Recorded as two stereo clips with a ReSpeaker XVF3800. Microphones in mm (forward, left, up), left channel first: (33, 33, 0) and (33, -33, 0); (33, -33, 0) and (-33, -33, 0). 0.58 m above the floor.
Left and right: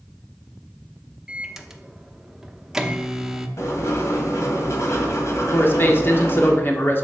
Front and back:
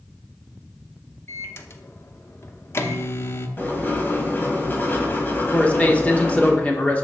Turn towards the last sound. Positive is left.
turn(degrees=55)